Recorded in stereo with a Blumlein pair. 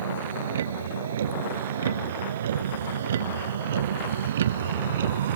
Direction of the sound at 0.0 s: 65° right.